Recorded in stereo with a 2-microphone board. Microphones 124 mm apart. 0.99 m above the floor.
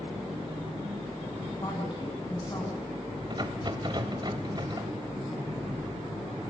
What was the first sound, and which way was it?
A woman speaking, 35° left (ahead or behind).